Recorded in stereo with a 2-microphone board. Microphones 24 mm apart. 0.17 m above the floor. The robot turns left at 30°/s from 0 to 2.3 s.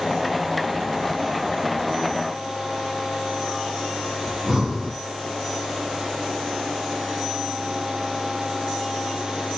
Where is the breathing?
30° right (ahead or behind), 1.8 m.